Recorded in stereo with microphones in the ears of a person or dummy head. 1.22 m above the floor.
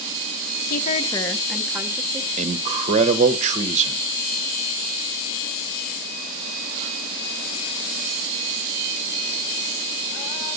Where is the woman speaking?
50° left (ahead or behind), 1.0 m; by 2.3 s 20° right (ahead or behind), 2 m.